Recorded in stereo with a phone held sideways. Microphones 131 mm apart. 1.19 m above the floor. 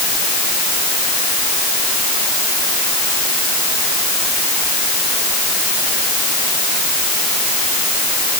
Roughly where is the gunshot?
No gunshot in this recording.